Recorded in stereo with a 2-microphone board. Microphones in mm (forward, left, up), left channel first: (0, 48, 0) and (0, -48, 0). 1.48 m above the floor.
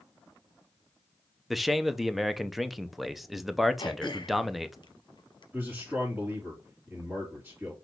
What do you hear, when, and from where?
1.5 s a man speaking: centre (ahead or behind), 0.5 m
3.8 s throat clearing: 50° left (ahead or behind), 1.0 m
5.5 s a man speaking: 20° right (ahead or behind), 3 m